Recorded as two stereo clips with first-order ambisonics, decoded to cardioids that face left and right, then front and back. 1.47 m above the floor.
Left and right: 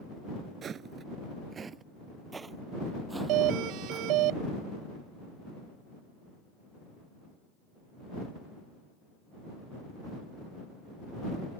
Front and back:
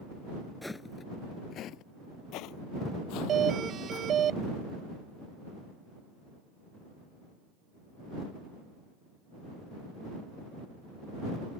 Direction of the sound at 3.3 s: 120° right.